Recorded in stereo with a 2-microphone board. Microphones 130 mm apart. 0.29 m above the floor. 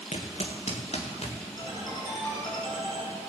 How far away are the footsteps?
About 1.9 m.